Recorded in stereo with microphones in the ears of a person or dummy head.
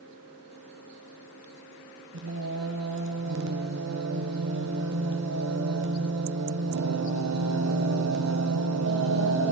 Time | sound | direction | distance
2.1 | singing | 65° right (ahead or behind) | 1.2 m